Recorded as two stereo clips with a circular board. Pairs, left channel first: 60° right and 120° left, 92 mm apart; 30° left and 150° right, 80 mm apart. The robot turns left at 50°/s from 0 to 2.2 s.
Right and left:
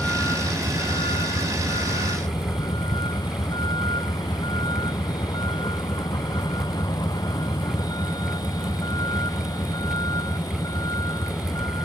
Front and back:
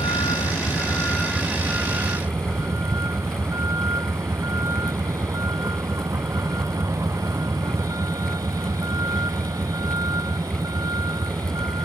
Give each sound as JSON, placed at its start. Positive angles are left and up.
{"t": 0.0, "sound": "a vehicle", "azimuth_deg": 15}